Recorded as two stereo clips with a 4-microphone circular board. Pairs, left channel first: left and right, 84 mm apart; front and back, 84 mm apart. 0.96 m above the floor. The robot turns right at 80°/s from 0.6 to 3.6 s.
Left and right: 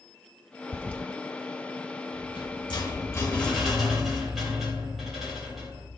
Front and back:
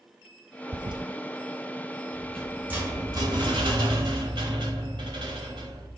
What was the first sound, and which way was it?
A toilet flushing, 140° left.